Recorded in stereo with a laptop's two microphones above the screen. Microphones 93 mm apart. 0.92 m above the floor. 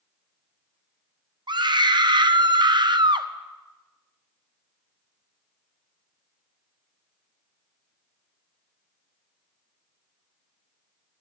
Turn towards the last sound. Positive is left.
turn(degrees=-55)  # may be behind; listen again after turning